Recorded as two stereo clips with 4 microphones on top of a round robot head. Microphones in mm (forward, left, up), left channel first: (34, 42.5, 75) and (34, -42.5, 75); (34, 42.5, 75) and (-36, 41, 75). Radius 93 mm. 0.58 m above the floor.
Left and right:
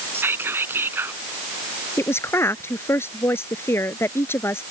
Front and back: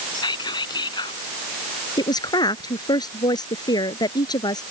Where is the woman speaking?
25° left.